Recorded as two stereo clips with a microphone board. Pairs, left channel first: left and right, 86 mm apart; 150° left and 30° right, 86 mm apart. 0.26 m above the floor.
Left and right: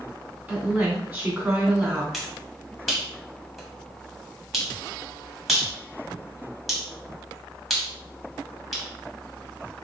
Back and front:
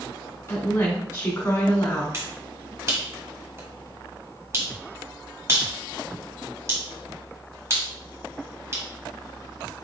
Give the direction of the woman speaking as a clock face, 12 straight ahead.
5 o'clock.